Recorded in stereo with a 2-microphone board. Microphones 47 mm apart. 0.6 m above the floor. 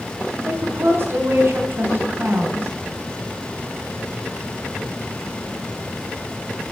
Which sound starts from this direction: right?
A woman speaking, at 0.5 s.